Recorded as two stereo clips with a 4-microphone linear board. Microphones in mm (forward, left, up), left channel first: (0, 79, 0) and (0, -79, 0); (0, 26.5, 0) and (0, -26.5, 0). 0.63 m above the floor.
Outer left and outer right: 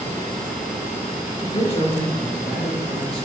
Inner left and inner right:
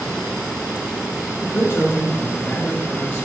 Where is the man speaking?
45° left (ahead or behind), 2 m.